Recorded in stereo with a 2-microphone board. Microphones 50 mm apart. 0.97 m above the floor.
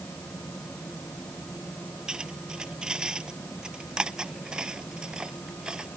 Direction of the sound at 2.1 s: 15° right (ahead or behind).